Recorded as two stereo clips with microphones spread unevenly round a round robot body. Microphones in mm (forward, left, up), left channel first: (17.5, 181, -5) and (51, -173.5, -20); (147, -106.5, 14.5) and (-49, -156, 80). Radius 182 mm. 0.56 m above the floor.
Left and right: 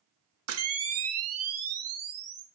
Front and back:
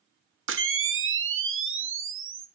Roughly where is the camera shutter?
Behind right.